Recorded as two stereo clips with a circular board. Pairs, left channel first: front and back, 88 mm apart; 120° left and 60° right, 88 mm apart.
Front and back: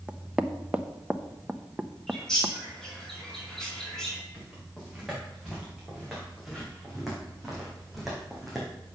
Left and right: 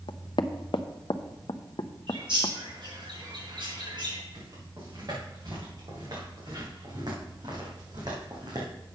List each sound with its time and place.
0.1 s knocking: 105° left, 0.6 m
2.1 s a bird: 85° right, 3.5 m
4.3 s footsteps: 95° right, 5.5 m